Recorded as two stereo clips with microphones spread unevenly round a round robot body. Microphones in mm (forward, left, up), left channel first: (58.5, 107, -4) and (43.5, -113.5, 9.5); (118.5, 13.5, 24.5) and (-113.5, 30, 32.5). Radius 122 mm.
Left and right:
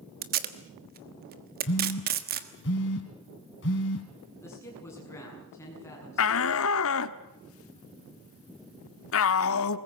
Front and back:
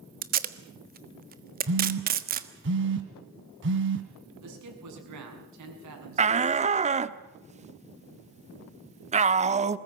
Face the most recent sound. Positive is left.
turn(degrees=115)